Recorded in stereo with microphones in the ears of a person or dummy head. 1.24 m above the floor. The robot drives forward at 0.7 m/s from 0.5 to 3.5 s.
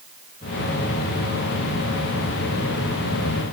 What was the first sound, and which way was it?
Only background noise.